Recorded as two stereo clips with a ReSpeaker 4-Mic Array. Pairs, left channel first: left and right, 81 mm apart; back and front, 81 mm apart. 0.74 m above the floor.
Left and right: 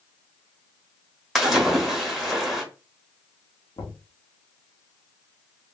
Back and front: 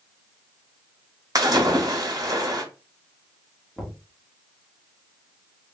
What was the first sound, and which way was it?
A splash, straight ahead.